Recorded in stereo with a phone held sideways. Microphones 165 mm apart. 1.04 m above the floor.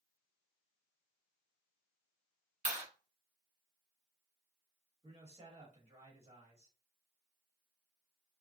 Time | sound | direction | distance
2.6 | a clap | 45° right (ahead or behind) | 1.2 m
5.0 | a man speaking | 35° right (ahead or behind) | 1.3 m